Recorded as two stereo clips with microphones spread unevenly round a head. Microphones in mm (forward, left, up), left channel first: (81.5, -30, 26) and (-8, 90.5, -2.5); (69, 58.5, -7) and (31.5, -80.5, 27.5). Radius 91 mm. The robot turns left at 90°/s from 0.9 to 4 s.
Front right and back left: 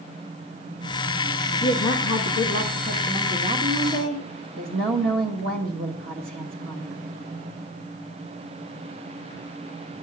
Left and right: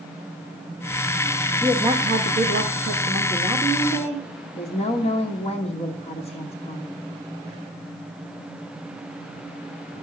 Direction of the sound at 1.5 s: 15° right.